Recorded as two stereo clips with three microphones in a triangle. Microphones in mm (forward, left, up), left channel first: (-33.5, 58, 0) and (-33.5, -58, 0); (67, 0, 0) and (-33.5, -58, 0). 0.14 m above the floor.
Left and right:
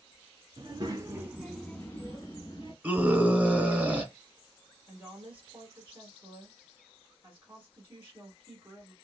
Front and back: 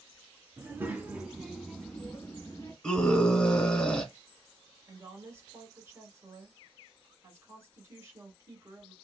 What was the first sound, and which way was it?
A child speaking, 95° right.